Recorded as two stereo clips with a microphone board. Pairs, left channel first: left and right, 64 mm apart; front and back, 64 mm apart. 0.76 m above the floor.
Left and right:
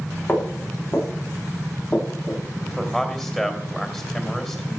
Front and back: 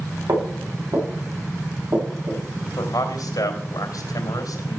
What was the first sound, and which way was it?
Footsteps, 160° left.